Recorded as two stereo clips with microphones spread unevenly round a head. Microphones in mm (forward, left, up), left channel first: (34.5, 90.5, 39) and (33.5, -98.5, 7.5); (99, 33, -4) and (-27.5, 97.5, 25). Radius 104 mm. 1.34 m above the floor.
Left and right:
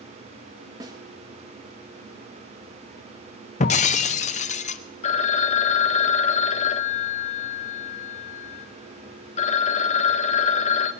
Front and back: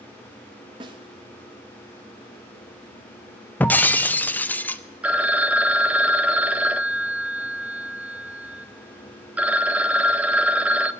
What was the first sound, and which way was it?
A snare drum, 170° right.